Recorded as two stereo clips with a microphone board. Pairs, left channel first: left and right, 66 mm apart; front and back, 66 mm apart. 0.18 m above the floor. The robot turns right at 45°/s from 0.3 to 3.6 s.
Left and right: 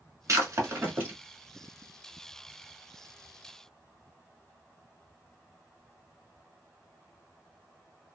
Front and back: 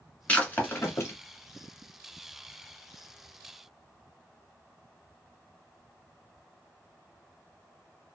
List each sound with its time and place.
0.3 s breaking glass: 70° right, 1.2 m; by 1.1 s 30° right, 1.2 m